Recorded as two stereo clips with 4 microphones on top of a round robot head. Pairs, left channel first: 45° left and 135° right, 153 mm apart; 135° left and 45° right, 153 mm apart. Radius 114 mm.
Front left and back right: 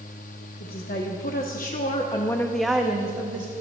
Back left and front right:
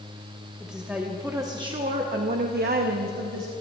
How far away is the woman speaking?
About 1.5 m.